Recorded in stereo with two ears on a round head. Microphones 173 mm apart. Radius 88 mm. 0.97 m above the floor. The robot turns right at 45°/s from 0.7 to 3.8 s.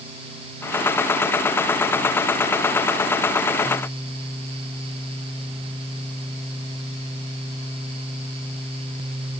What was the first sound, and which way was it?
Only background noise.